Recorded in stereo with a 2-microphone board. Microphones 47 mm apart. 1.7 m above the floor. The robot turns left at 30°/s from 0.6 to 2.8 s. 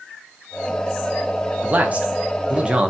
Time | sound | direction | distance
1.6 | a man speaking | 30° right (ahead or behind) | 0.5 m